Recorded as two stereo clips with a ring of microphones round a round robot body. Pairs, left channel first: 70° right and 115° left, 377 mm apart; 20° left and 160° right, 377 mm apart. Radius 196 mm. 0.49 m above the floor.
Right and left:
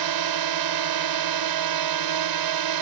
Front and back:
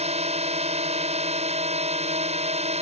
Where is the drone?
130° left.